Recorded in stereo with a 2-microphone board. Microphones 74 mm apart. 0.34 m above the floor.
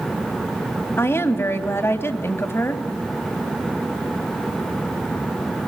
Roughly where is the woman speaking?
Left.